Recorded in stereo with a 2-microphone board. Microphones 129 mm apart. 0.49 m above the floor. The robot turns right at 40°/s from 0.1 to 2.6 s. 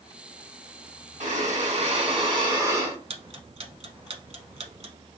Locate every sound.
1.2 s breathing: 85° right, 1.4 m; by 3.0 s 30° right, 1.4 m
3.1 s ticking: 50° right (ahead or behind), 0.7 m